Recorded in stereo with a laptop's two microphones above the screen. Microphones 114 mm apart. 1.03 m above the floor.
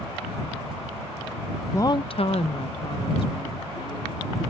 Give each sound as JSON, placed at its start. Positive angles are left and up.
{"t": 1.7, "sound": "a woman speaking", "side_deg": 20}